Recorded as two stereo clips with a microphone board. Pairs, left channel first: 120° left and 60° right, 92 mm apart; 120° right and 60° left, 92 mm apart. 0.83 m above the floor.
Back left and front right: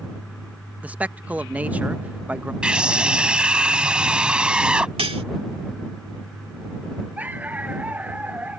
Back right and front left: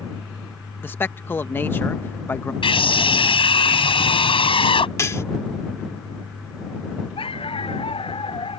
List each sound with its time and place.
0.8 s a man speaking: 100° right
2.6 s a scream: 140° right
5.0 s cutlery clinking: 60° right
7.2 s a dog barking: 135° right